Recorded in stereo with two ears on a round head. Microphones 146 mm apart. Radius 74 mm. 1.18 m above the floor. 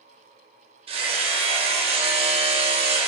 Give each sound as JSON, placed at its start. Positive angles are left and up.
{"t": 0.9, "sound": "hammering", "side_deg": -35, "distance_m": 1.5}